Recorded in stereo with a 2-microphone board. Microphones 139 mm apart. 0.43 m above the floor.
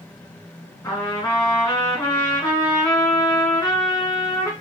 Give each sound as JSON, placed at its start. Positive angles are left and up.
{"t": 0.8, "sound": "a trumpet", "side_deg": 25, "distance_m": 2.5}